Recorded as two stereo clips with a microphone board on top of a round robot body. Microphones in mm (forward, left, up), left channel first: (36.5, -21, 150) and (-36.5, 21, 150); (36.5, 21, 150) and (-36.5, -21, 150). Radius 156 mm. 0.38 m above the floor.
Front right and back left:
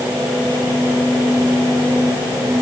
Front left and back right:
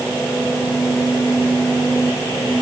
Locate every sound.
Only background noise.